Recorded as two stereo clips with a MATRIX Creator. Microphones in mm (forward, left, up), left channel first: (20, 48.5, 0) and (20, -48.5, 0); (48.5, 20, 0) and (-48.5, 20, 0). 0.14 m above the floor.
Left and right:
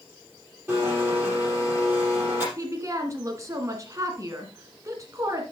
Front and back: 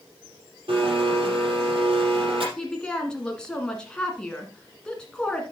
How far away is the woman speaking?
About 1.3 m.